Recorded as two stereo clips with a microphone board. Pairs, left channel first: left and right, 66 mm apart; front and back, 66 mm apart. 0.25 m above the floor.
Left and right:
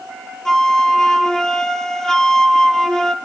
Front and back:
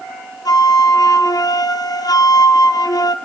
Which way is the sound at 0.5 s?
10° left.